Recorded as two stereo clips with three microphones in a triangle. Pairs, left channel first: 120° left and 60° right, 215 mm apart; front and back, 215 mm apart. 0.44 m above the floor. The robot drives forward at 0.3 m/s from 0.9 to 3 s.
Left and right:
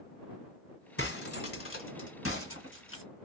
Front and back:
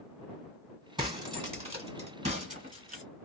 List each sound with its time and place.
1.0 s breaking glass: 110° left, 1.7 m; by 3.0 s 130° left, 2.0 m